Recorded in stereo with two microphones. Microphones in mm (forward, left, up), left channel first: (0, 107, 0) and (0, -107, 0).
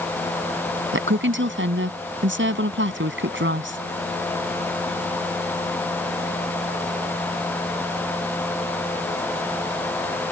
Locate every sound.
0.9 s a woman speaking: 65° right (ahead or behind)